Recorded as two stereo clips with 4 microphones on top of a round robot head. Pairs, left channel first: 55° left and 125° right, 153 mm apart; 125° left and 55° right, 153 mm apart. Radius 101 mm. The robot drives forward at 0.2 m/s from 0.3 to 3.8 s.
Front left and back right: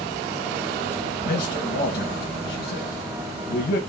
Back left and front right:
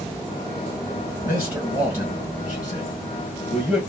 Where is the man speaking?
25° left, 1.8 m; by 3.8 s 35° left, 1.3 m.